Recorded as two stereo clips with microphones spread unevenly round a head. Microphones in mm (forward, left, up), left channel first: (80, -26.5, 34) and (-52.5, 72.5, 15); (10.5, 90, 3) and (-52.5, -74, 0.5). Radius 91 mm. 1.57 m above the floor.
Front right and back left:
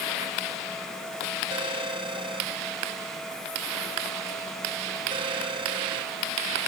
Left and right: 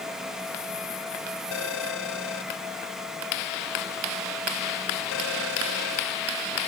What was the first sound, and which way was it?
A phone ringing, 80° left.